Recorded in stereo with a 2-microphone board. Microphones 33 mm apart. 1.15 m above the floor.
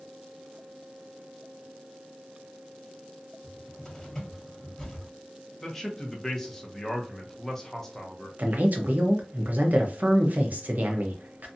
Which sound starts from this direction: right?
A man speaking, at 8.4 s.